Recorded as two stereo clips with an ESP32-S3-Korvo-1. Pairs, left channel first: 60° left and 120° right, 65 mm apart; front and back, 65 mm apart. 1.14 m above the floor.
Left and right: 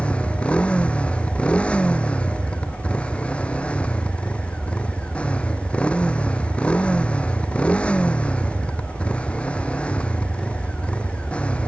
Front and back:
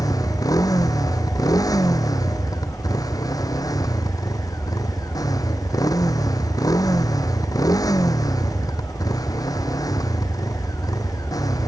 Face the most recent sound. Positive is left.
turn(degrees=-10)